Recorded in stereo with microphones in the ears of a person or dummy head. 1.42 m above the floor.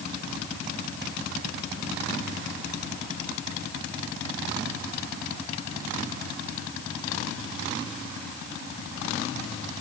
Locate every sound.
Only background noise.